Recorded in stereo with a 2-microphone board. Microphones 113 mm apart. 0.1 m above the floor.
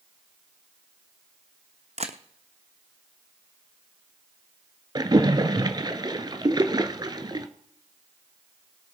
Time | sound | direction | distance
2.0 | a camera shutter | 70° right (ahead or behind) | 1.0 m
5.0 | a splash | 40° right (ahead or behind) | 0.9 m